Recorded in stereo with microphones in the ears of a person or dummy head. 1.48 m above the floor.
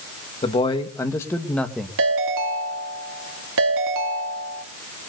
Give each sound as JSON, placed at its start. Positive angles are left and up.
{"t": 0.4, "sound": "a man speaking", "side_deg": 30, "distance_m": 1.9}
{"t": 2.0, "sound": "a ringtone", "side_deg": -75, "distance_m": 2.0}